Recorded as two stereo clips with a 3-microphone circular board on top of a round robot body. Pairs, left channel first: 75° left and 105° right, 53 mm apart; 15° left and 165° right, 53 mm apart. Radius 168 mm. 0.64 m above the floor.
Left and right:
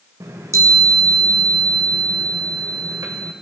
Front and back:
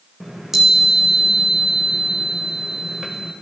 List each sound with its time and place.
0.2 s a chime: 80° right, 0.6 m